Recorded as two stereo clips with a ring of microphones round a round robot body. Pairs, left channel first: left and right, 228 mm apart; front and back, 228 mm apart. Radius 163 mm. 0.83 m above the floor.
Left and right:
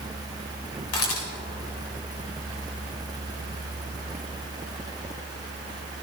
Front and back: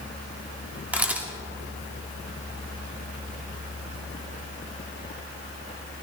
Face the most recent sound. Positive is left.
turn(degrees=95)